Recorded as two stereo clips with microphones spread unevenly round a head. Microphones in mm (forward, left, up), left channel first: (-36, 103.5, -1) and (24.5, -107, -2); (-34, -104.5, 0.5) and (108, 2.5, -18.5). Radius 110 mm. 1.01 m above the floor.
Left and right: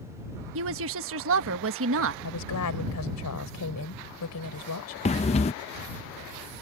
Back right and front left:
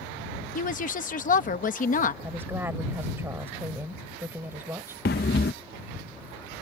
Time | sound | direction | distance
0.6 | a woman speaking | 100° right | ?
2.2 | a woman speaking | 120° left | ?
5.0 | breathing | 170° left | ?